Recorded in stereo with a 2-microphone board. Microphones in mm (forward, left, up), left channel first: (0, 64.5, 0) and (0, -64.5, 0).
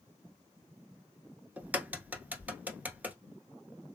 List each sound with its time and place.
1.6 s a crack: 15° right (ahead or behind), 0.9 m